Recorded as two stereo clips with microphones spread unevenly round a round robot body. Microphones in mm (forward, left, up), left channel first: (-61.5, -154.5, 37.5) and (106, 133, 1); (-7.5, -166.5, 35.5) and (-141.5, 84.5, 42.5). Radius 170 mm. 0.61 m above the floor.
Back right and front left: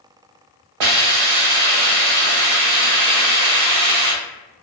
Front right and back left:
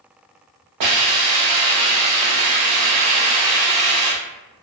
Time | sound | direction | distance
0.8 | a hiss | 85° left | 0.7 m